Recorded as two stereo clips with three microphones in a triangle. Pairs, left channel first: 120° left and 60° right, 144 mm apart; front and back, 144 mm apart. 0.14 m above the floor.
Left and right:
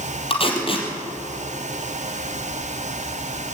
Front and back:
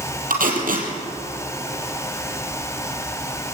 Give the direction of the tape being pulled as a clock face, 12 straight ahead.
6 o'clock.